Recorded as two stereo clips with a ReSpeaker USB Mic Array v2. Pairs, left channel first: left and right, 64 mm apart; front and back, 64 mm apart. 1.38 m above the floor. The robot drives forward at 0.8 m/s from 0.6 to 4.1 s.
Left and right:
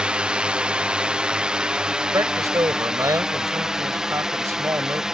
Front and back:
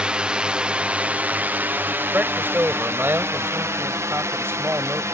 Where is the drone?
135° right; by 5.1 s 165° right.